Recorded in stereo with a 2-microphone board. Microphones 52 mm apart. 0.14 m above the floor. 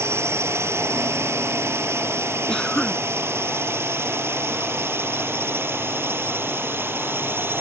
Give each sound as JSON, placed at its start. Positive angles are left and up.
{"t": 0.0, "sound": "a drone", "side_deg": -55}
{"t": 2.5, "sound": "a cough", "side_deg": 15}